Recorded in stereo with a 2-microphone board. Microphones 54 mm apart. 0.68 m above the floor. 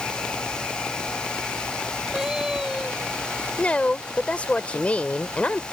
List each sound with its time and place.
2.1 s a cat meowing: 10° right (ahead or behind)
3.6 s a woman speaking: 25° left (ahead or behind)